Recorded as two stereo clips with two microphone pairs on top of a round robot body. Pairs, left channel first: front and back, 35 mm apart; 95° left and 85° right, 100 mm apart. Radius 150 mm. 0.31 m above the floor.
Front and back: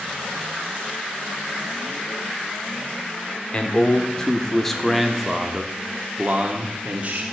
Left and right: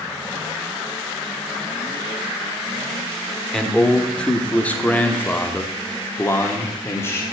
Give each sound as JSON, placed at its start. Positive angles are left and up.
{"t": 3.5, "sound": "a man speaking", "azimuth_deg": 10, "distance_m": 1.7}